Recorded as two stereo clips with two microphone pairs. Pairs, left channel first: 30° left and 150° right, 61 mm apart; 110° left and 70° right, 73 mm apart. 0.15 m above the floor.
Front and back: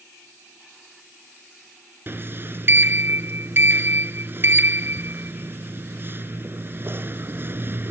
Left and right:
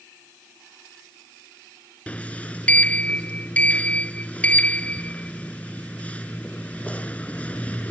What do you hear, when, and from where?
2.1 s a sliding door: 175° left